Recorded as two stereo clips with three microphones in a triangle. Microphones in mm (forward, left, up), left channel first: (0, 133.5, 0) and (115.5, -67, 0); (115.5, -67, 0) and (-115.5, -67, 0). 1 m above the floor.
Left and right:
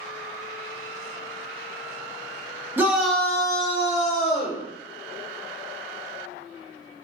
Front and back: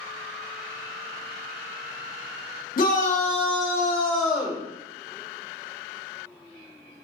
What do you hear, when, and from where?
2.8 s a shout: 15° left, 1.1 m; by 4.6 s 100° left, 1.2 m